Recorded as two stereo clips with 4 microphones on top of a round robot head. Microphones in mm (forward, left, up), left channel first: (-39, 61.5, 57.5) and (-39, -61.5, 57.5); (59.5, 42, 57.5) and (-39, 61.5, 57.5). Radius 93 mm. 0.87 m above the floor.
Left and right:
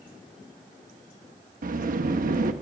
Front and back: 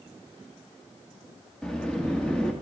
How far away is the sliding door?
About 0.9 m.